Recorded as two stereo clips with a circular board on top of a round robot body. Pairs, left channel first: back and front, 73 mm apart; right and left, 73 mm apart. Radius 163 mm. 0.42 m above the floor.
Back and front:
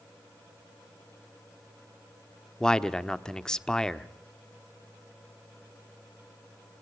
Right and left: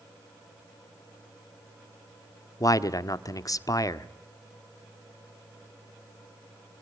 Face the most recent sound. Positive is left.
turn(degrees=-100)